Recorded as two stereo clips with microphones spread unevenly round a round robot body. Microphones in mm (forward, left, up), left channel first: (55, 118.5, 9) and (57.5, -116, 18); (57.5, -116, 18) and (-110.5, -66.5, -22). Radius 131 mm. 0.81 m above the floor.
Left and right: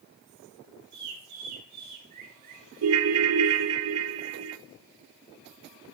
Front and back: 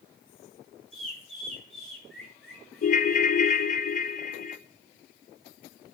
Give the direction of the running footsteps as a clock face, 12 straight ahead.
I don't hear running footsteps.